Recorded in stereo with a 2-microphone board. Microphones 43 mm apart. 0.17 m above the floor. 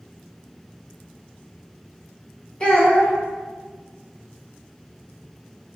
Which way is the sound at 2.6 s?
20° left (ahead or behind).